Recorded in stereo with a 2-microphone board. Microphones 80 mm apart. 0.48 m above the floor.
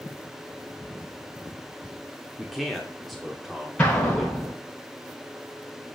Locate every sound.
2.4 s a man speaking: centre (ahead or behind), 1.1 m
3.8 s an explosion: 15° left (ahead or behind), 5.5 m